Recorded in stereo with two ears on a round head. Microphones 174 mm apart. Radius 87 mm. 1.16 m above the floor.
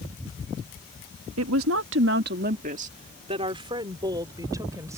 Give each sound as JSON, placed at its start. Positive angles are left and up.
{"t": 1.4, "sound": "a woman speaking", "side_deg": -85}